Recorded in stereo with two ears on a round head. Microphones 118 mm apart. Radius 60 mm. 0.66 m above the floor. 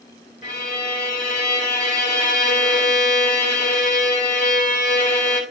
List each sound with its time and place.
0.4 s a violin: 55° left (ahead or behind), 2.5 m